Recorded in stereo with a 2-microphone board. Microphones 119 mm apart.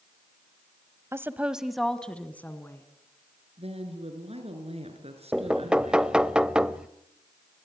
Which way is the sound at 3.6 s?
60° right (ahead or behind).